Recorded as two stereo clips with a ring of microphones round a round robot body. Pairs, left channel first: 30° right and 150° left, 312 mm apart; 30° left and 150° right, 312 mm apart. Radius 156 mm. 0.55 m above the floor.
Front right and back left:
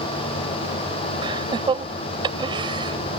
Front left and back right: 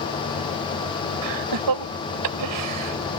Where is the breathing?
No breathing in this recording.